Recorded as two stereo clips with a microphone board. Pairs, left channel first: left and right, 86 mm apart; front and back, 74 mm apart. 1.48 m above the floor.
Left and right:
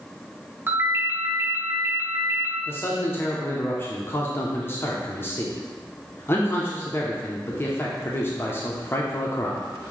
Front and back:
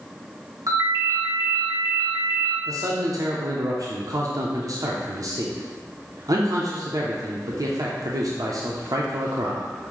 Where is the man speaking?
150° left, 0.7 m.